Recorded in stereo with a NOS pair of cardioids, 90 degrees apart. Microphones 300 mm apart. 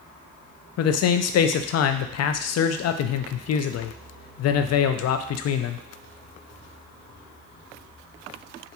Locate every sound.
0.8 s a man speaking: 55° left, 0.5 m